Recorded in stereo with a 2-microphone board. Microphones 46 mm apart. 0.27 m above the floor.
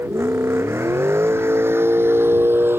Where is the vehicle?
60° right (ahead or behind); by 2.8 s 50° right (ahead or behind).